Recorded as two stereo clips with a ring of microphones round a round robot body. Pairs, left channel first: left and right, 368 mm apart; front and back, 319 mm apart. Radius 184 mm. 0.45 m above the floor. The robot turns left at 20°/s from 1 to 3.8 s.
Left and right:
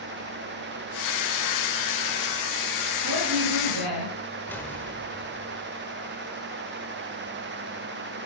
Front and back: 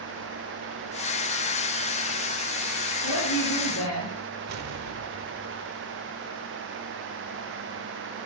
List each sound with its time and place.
3.0 s a woman speaking: 35° right, 8.5 m; by 4.1 s 50° right, 8.5 m
4.5 s an explosion: 175° left, 1.5 m